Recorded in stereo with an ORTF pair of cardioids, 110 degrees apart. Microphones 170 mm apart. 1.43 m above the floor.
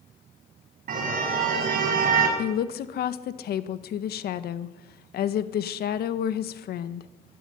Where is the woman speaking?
60° left, 1.6 m.